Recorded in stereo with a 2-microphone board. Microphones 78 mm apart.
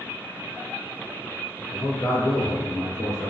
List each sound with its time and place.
1.7 s a man speaking: 35° left (ahead or behind), 1.6 m